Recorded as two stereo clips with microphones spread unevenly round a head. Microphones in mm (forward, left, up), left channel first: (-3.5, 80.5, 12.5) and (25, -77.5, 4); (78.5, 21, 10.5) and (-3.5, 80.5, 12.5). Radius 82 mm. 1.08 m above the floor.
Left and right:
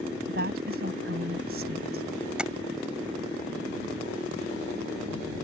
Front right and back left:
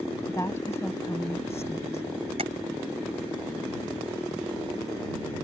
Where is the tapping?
165° right.